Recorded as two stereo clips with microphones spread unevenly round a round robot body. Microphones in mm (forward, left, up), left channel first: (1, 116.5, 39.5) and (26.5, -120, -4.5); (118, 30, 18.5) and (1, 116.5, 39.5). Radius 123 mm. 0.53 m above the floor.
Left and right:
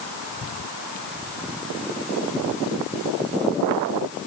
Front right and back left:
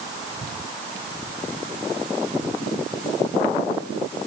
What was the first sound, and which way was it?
Only background noise.